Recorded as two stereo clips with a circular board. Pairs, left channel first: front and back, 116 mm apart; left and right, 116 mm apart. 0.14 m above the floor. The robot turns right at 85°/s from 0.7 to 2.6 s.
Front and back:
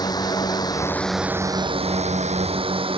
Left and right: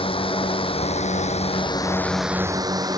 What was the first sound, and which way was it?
A drone, 55° left.